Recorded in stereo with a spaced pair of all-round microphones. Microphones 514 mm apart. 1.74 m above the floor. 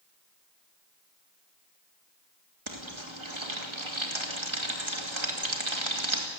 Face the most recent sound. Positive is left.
turn(degrees=-65)  # may be behind; listen again after turning